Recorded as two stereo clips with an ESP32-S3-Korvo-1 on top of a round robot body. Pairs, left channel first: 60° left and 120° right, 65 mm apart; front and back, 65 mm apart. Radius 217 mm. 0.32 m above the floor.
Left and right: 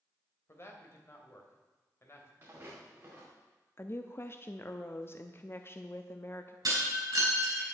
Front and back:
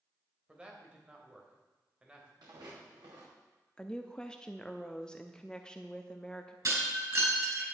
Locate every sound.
0.5 s a man speaking: 105° left, 2.5 m
2.4 s footsteps: straight behind, 4 m
3.8 s a woman speaking: 70° left, 0.9 m
6.7 s breaking glass: 145° right, 5 m